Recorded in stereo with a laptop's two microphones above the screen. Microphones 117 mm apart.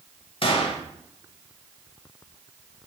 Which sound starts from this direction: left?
A gunshot, at 0.4 s.